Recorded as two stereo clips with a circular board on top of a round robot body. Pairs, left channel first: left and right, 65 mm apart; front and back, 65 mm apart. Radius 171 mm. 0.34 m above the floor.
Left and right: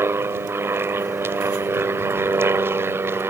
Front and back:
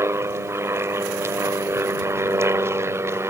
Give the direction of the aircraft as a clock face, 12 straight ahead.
5 o'clock.